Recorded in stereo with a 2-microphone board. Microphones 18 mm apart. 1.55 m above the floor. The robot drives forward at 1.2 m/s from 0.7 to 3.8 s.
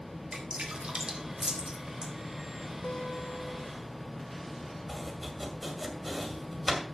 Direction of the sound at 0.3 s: 60° right (ahead or behind).